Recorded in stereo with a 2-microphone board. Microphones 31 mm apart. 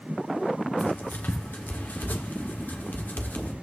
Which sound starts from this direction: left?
Writing, at 0.8 s.